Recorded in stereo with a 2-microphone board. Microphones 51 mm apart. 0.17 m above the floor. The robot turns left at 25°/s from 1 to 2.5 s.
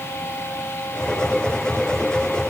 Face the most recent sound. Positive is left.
No sound to turn to.